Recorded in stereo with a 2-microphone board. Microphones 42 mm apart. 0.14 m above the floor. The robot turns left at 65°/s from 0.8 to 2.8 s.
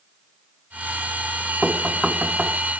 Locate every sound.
1.6 s knocking: 10° right (ahead or behind), 0.8 m; by 2.6 s 25° right (ahead or behind), 0.8 m